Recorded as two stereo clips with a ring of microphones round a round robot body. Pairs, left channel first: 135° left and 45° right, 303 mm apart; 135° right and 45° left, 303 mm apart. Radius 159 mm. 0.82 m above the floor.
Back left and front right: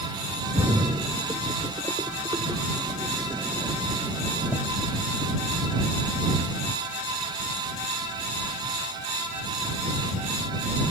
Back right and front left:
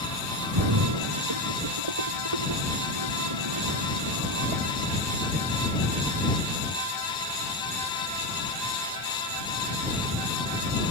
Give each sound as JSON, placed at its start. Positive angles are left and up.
{"t": 0.6, "sound": "a splash", "azimuth_deg": 35}